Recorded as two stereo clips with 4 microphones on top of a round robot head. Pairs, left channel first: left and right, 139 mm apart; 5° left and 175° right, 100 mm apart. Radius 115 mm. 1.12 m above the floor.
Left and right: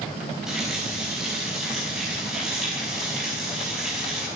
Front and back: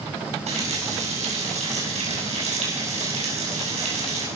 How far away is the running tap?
About 6 m.